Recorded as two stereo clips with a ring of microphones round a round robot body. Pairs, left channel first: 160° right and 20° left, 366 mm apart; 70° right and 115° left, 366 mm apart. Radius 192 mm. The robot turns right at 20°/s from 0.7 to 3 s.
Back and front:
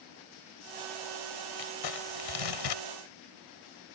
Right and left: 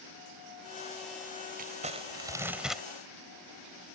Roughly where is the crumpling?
Behind.